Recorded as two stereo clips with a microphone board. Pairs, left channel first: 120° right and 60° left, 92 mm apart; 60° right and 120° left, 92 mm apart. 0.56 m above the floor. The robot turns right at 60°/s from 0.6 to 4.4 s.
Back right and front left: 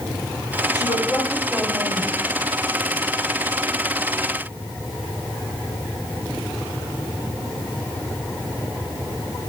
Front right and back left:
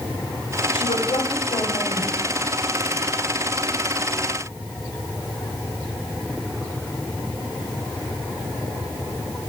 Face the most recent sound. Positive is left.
turn(degrees=145)